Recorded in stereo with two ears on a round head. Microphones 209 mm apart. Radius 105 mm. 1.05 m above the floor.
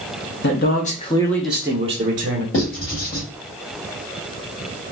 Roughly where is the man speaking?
Left.